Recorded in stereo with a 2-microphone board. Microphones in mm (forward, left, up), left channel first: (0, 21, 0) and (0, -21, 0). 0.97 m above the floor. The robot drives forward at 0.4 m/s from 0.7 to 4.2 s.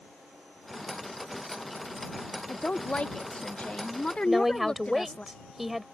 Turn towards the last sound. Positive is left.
turn(degrees=-5)  # may be behind; listen again after turning